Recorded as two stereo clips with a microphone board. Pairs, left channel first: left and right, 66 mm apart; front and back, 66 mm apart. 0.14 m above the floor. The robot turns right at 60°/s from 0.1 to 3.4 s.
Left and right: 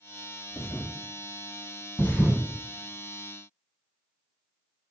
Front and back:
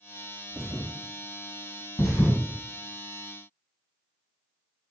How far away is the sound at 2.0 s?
About 1.5 m.